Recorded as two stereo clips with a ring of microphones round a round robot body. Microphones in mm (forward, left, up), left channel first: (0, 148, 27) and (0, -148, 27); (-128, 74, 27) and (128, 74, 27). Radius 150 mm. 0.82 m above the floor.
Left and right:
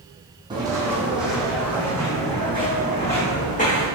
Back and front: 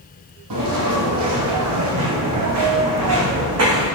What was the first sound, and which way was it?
Footsteps, 15° right.